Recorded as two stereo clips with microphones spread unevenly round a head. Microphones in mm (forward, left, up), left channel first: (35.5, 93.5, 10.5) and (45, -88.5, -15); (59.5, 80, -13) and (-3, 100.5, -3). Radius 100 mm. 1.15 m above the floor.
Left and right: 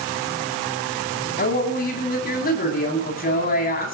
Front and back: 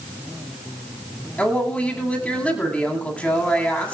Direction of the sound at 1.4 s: 55° left.